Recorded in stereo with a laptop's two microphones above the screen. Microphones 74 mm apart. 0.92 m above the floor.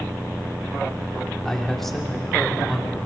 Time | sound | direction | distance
1.4 | a man speaking | 5° left (ahead or behind) | 2.5 m